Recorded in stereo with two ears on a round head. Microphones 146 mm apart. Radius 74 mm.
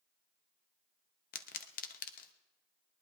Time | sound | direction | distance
1.3 | a pop | 55° left (ahead or behind) | 0.8 m